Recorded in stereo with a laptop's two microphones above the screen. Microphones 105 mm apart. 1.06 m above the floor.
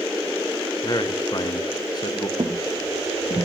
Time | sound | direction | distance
0.8 | a man speaking | 40° left (ahead or behind) | 0.8 m
2.4 | footsteps | 50° right (ahead or behind) | 1.7 m